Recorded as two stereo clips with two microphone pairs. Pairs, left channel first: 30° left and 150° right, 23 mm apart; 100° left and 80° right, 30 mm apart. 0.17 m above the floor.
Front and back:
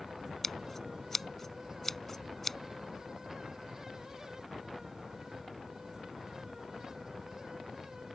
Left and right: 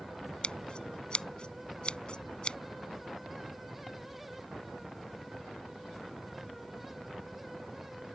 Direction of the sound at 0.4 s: 100° left.